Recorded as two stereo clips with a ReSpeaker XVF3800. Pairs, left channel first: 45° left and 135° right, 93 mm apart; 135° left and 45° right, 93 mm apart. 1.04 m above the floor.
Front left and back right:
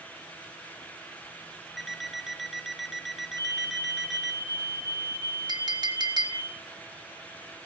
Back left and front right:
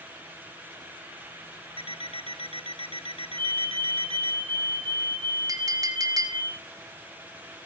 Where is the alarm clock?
135° left, 1.0 m.